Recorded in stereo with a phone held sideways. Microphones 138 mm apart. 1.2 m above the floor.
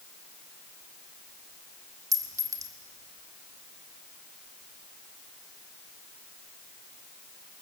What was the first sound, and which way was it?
A clink, 25° right (ahead or behind).